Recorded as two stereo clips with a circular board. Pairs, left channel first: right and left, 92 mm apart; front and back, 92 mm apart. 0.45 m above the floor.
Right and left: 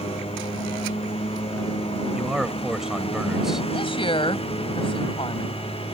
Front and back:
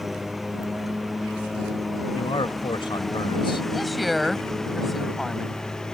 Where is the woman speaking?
90° right.